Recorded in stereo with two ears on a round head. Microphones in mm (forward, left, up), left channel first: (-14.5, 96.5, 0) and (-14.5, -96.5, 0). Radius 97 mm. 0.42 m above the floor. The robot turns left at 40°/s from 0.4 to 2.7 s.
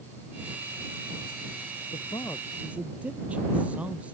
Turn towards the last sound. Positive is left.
turn(degrees=-5)